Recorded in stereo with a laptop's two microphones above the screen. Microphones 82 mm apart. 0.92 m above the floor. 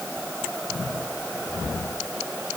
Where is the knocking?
I don't hear knocking.